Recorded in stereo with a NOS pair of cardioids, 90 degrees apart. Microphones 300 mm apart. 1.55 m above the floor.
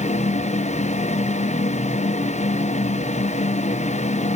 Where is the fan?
25° left, 0.7 m.